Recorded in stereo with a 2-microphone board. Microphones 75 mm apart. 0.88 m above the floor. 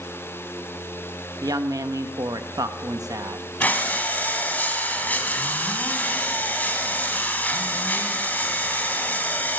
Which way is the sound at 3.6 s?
25° left (ahead or behind).